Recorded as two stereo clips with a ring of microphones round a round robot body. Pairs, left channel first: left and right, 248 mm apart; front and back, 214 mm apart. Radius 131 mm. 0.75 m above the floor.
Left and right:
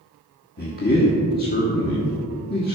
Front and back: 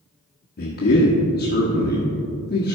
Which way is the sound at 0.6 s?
40° left.